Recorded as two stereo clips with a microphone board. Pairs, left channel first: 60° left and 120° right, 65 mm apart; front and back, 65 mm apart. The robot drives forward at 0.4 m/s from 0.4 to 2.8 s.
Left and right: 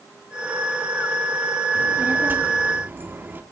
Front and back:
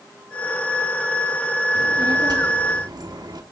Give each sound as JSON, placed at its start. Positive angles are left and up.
{"t": 1.8, "sound": "a child speaking", "azimuth_deg": 180, "distance_m": 1.5}